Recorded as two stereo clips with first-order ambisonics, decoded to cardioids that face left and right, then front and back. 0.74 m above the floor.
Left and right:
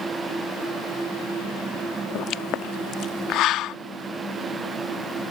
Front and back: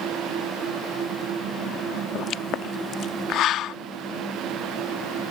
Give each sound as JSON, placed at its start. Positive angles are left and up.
{"t": 2.1, "sound": "a pop", "azimuth_deg": 45}